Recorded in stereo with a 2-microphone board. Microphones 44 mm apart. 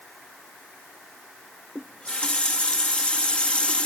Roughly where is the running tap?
Left.